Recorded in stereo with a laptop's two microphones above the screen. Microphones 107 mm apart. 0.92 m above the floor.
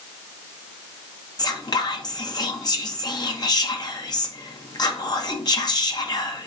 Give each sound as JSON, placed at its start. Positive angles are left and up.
{"t": 1.4, "sound": "whispering", "side_deg": 40, "distance_m": 0.5}